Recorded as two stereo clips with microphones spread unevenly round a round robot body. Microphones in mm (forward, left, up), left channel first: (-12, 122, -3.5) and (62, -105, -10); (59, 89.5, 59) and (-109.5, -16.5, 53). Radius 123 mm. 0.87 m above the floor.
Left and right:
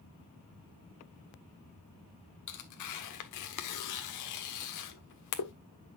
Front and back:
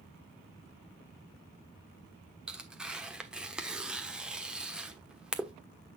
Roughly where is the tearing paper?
Behind left.